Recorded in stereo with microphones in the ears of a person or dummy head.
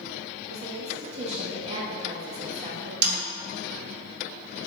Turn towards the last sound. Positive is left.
turn(degrees=-65)  # may be behind; listen again after turning